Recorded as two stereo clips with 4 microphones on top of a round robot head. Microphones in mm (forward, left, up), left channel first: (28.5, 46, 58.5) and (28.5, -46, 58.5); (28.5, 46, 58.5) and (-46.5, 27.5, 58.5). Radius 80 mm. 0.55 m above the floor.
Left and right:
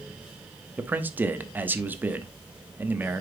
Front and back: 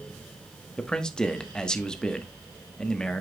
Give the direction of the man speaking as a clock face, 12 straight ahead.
2 o'clock.